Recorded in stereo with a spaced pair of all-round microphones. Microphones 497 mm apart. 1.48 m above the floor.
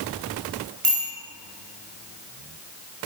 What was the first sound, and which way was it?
A bicycle bell, 80° right.